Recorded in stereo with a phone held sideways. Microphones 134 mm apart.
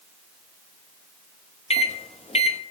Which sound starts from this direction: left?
A microwave, at 1.7 s.